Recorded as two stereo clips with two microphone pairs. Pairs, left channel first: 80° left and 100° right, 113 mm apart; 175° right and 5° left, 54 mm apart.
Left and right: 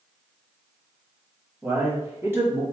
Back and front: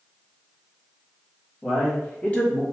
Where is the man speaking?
100° right, 1.0 m; by 2.6 s 145° right, 1.2 m.